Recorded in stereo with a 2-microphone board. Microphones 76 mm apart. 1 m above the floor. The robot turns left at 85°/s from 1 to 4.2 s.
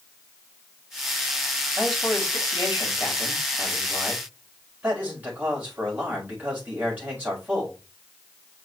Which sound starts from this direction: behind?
A man speaking, at 1.8 s.